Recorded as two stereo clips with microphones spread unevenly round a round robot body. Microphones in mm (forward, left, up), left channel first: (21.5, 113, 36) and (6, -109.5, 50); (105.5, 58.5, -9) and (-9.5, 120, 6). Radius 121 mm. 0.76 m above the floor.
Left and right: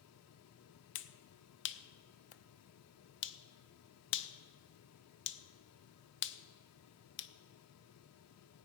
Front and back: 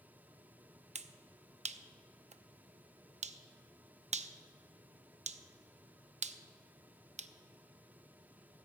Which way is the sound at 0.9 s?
115° left.